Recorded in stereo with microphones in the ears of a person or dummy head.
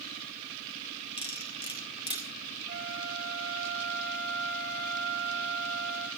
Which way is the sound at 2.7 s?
55° right (ahead or behind).